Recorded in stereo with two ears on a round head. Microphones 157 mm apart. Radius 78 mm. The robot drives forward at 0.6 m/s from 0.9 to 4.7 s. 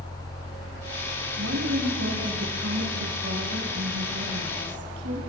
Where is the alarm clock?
No alarm clock in this recording.